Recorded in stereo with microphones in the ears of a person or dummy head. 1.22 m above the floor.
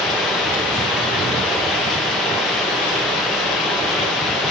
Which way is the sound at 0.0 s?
5° right (ahead or behind).